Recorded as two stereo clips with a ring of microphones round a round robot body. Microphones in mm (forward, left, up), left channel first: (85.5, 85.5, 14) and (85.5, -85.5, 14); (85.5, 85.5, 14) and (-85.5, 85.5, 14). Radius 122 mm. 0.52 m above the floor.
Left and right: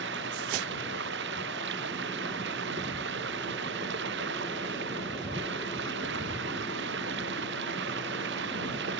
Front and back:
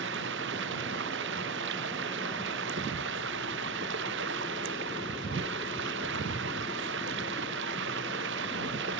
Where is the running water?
135° right.